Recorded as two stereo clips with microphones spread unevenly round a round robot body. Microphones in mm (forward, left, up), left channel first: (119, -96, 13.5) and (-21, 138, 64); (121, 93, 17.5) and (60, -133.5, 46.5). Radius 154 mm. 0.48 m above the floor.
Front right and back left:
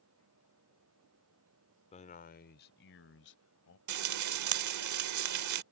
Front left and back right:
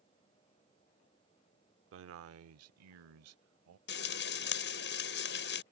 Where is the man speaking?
110° right; by 3.8 s 100° right.